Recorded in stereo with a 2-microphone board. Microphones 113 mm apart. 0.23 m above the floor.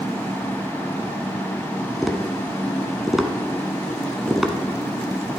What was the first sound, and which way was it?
Tapping, 5° right (ahead or behind).